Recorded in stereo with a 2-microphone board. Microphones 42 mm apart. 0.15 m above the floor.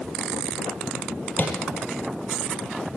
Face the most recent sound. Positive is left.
turn(degrees=40)  # may be behind; listen again after turning